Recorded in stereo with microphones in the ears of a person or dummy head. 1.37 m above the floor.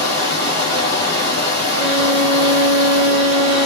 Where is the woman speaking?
No woman speaking in this recording.